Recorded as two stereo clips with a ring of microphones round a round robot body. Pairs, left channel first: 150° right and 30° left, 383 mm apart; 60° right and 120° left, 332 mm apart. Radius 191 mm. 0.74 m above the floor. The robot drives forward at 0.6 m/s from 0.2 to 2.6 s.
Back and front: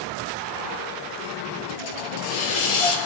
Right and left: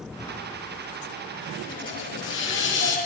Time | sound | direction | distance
1.7 | a hiss | 140° right | 6.5 m